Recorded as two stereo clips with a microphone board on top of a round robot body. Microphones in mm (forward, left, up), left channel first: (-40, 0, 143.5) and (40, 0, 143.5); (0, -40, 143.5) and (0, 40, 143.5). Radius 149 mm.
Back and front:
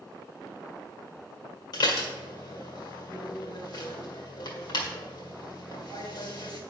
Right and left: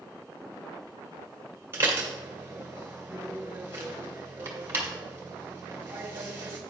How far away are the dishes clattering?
About 2.0 m.